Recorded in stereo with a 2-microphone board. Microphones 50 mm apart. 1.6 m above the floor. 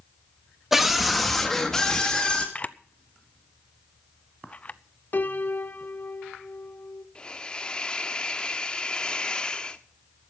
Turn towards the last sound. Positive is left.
turn(degrees=20)  # may be behind; listen again after turning